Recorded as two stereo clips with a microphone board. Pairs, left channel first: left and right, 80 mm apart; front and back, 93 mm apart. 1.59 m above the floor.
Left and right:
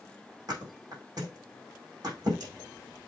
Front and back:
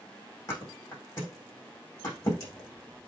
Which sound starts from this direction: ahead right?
A thud, at 0.5 s.